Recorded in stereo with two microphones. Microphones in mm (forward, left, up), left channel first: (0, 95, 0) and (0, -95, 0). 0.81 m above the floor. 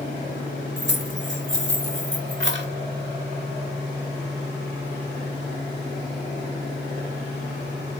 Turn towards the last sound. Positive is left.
turn(degrees=-70)  # may be behind; listen again after turning